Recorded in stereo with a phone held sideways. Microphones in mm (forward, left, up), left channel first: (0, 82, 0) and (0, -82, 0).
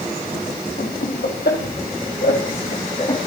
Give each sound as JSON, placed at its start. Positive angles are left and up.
{"t": 0.8, "sound": "laughter", "side_deg": 75, "distance_m": 4.0}